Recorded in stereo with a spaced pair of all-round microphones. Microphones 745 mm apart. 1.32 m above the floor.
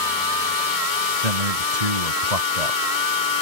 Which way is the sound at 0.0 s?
90° right.